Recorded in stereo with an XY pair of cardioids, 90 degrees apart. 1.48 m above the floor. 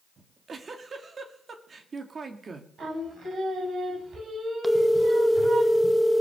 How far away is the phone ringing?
About 1.4 m.